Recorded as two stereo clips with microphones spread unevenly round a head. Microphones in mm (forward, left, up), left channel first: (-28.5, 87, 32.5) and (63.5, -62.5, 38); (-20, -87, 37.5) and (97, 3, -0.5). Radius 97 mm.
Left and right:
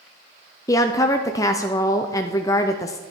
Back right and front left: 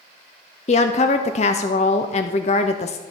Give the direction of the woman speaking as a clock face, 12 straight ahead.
6 o'clock.